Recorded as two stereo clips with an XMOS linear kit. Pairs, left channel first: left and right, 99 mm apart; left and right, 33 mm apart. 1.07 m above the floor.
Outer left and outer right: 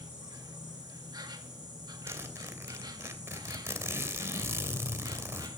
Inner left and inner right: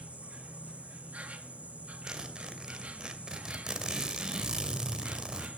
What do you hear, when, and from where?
0.0 s an insect: 45° right (ahead or behind), 2 m
2.1 s a zipper: 25° right (ahead or behind), 2.5 m